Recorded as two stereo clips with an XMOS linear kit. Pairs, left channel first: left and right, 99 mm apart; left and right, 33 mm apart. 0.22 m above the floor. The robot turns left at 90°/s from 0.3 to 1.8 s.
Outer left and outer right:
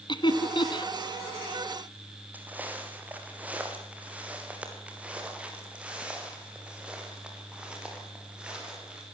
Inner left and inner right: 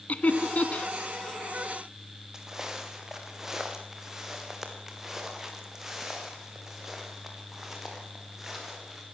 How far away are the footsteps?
About 4 m.